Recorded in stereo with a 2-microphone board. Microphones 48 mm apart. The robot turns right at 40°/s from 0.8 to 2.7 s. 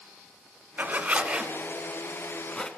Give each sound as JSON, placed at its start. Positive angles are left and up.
{"t": 0.8, "sound": "a zipper", "side_deg": -40, "distance_m": 1.2}